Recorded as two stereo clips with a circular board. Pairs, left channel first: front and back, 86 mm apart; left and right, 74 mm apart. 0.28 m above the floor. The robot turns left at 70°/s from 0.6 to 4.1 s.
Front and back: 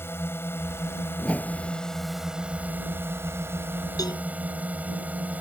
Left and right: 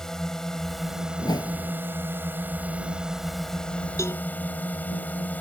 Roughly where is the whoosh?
Left.